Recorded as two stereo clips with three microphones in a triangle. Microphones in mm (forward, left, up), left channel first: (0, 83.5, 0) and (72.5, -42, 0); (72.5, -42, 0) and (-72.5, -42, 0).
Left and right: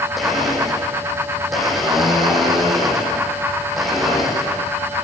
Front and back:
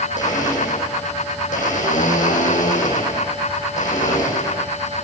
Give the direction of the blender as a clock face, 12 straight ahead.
11 o'clock.